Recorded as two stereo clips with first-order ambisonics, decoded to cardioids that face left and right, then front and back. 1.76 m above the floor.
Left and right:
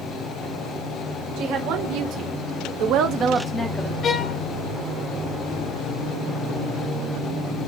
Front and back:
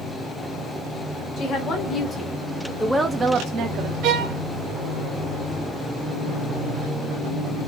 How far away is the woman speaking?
About 2.0 m.